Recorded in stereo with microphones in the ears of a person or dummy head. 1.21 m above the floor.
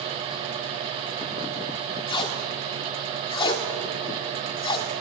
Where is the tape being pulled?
25° left (ahead or behind), 2 m.